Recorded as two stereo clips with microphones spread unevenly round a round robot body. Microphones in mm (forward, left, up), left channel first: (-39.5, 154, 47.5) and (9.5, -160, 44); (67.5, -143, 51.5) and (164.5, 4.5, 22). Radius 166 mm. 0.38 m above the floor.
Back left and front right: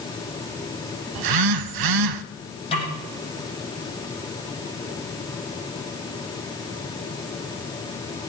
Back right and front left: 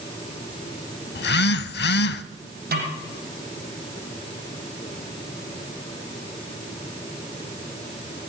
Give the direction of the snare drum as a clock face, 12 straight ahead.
11 o'clock.